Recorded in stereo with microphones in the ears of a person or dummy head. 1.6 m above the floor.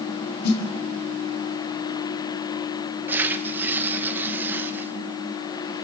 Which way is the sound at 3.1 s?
10° right (ahead or behind).